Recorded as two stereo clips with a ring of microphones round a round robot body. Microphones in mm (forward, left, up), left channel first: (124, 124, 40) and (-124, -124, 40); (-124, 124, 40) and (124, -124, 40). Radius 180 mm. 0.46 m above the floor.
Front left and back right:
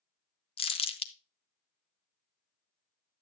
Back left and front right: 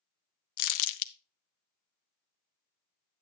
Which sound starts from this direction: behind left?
Crumpling, at 0.6 s.